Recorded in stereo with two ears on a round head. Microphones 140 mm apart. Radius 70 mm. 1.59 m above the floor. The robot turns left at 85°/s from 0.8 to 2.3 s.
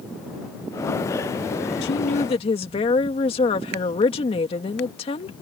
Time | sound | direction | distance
1.8 | a woman speaking | 80° left | ?